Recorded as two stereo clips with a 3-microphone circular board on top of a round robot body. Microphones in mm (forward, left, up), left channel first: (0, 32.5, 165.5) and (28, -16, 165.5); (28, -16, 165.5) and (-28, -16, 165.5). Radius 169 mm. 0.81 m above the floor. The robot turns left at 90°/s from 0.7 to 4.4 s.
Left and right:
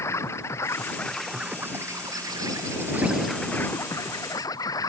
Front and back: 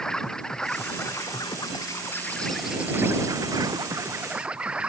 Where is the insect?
80° left; by 4.9 s 105° left.